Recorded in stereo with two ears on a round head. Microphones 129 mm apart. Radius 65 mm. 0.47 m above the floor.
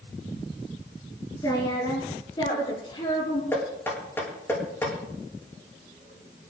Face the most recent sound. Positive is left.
turn(degrees=15)  # may be behind; listen again after turning